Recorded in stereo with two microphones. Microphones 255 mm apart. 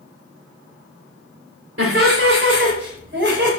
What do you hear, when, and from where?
1.8 s laughter: 55° right (ahead or behind), 3 m; by 3.5 s 45° right (ahead or behind), 4 m